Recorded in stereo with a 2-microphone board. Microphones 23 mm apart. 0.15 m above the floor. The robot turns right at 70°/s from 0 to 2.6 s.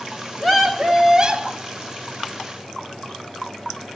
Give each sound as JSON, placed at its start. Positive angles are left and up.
{"t": 0.4, "sound": "a scream", "azimuth_deg": 155, "distance_m": 2.0}